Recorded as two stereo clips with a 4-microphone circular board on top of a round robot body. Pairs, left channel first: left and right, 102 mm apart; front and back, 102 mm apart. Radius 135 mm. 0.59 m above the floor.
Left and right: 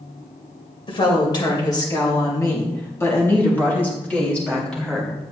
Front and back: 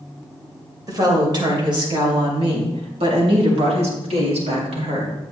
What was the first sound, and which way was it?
A woman speaking, 130° left.